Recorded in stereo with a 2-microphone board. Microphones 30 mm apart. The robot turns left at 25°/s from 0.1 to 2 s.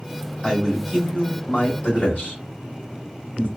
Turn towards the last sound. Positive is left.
turn(degrees=60)  # may be behind; listen again after turning